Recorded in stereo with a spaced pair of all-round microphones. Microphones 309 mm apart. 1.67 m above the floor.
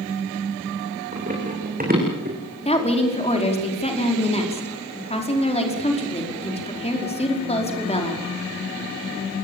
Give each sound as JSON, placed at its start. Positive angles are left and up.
{"t": 1.1, "sound": "running footsteps", "side_deg": -20, "distance_m": 8.5}
{"t": 2.6, "sound": "a woman speaking", "side_deg": 20, "distance_m": 5.0}